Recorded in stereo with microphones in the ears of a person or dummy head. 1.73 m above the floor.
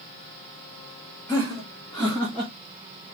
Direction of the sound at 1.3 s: 5° left (ahead or behind).